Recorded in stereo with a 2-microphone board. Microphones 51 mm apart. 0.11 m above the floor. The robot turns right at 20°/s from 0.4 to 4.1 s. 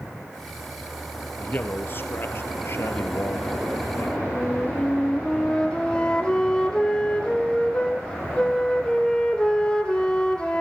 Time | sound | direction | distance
1.4 | a man speaking | 50° left | 2 m
4.3 | a flute | 20° left (ahead or behind) | 2 m